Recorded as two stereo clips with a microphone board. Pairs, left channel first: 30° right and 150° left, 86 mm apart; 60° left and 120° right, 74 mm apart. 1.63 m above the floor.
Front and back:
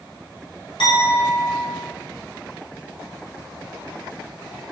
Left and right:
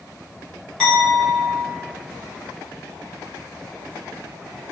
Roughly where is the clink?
Ahead.